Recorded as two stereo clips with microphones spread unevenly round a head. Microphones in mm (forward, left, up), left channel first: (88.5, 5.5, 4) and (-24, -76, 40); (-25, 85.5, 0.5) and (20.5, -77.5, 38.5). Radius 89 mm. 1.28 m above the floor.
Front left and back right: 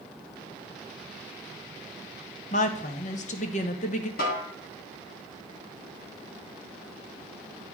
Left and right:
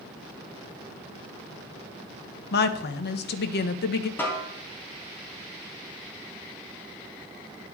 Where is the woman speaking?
80° left, 0.7 m.